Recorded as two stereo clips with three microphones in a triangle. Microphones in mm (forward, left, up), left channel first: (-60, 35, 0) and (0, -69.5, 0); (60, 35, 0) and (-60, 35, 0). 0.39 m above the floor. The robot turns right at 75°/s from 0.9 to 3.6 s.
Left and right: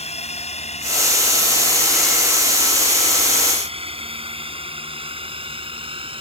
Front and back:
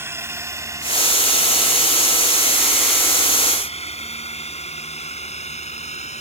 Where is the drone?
115° left; by 6.2 s 20° right.